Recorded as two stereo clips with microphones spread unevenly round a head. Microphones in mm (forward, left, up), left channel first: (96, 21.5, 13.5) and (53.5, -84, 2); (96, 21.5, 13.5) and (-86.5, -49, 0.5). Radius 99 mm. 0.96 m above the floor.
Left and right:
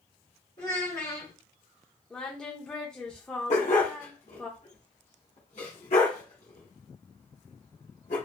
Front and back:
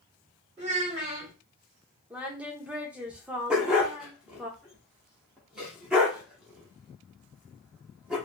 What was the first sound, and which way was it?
A child speaking, 135° left.